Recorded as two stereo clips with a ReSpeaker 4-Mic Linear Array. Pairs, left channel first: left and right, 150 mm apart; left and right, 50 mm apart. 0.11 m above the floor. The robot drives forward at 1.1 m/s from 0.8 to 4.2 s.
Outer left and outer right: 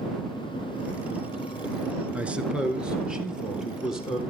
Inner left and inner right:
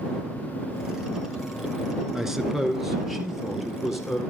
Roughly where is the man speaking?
Centre.